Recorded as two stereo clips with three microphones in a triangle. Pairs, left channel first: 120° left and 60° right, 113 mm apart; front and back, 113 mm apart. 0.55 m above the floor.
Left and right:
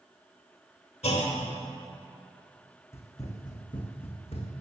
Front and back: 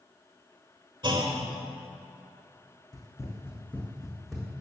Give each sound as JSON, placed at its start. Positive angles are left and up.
{"t": 1.0, "sound": "a clunk", "azimuth_deg": 135, "distance_m": 1.2}
{"t": 2.9, "sound": "running footsteps", "azimuth_deg": 55, "distance_m": 1.8}